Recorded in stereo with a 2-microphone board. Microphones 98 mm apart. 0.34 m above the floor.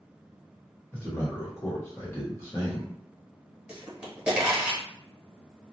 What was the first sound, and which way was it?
A man speaking, 25° left (ahead or behind).